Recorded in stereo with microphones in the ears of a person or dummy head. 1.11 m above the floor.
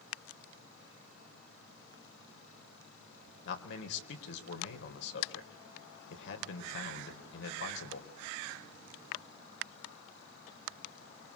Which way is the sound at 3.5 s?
70° left (ahead or behind).